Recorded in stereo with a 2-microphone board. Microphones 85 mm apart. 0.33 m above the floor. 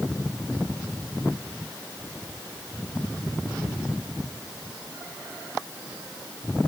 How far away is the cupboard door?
No cupboard door in this recording.